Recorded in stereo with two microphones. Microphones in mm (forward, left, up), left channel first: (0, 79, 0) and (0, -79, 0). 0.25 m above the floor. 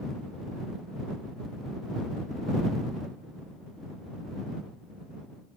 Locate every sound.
Only background noise.